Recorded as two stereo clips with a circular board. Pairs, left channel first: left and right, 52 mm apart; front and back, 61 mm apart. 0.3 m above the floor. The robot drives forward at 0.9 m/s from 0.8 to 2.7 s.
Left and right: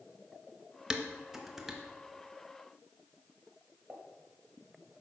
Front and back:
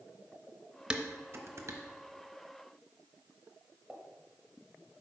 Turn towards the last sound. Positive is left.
turn(degrees=-100)